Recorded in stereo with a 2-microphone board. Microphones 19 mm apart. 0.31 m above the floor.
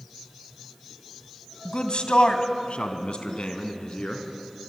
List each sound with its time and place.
1.6 s a man speaking: 50° left (ahead or behind), 2 m; by 4.2 s 55° left (ahead or behind), 3.5 m